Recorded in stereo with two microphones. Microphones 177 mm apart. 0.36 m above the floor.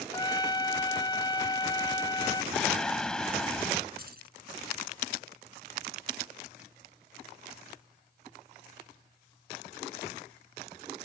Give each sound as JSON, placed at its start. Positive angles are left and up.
{"t": 0.1, "sound": "a trumpet", "side_deg": 25}
{"t": 2.5, "sound": "singing", "side_deg": 5}
{"t": 4.0, "sound": "keys jangling", "side_deg": -60}